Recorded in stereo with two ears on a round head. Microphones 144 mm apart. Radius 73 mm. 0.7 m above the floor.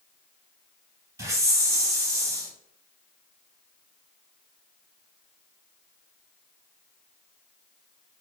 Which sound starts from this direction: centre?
A hiss, at 1.2 s.